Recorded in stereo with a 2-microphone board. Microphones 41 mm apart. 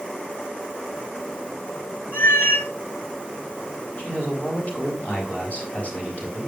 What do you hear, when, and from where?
2.1 s a cat meowing: 75° left (ahead or behind), 1.9 m
4.0 s a man speaking: 40° left (ahead or behind), 5 m